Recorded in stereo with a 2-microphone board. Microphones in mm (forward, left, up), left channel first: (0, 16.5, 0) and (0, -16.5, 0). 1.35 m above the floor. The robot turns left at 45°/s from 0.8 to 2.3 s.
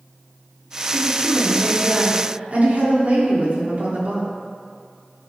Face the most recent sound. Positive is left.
turn(degrees=-125)